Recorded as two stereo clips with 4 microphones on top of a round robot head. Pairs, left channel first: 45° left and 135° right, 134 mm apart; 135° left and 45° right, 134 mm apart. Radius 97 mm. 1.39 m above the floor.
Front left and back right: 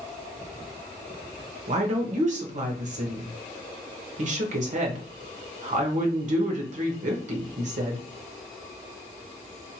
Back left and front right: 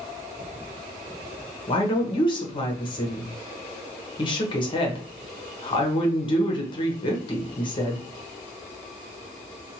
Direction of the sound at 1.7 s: 170° right.